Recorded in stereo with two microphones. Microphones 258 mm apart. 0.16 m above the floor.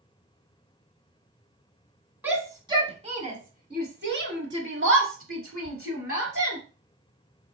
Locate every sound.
2.2 s a shout: 5° right (ahead or behind), 1.3 m; by 6.6 s 60° right (ahead or behind), 2.5 m